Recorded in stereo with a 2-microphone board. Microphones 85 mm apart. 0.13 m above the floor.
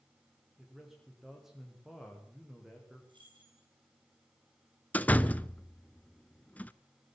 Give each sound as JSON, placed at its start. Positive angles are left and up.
{"t": 0.6, "sound": "a man speaking", "side_deg": -5, "distance_m": 7.0}
{"t": 3.1, "sound": "keys jangling", "side_deg": -65, "distance_m": 8.5}
{"t": 4.9, "sound": "a door slam", "side_deg": 20, "distance_m": 0.9}